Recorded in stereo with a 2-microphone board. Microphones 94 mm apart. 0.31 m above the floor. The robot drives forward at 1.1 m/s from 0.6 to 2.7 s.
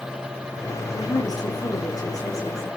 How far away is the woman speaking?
About 6.5 m.